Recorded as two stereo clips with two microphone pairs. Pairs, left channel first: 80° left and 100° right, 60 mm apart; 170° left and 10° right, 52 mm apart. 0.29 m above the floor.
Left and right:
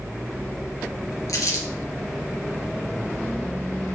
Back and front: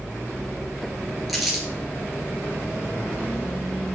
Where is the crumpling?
75° left, 2.5 m.